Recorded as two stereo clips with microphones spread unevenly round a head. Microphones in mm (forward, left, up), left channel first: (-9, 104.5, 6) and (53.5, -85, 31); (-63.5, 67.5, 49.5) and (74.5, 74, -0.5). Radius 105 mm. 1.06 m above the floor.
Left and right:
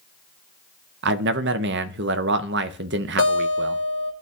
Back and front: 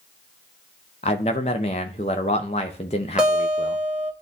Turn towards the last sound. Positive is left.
turn(degrees=85)